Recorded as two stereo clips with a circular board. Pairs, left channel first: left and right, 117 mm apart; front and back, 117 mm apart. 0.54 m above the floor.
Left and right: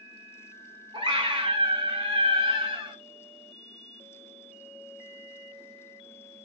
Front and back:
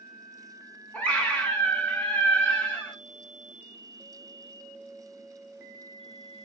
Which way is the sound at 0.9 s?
75° right.